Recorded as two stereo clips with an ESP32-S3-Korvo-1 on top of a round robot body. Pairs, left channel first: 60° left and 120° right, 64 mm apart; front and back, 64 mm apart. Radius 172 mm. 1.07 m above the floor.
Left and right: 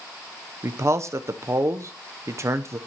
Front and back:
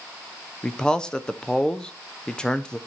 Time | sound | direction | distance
0.6 | a man speaking | 80° right | 0.6 m